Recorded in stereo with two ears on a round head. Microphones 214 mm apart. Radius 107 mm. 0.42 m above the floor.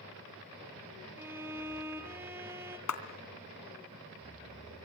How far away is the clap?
About 3 m.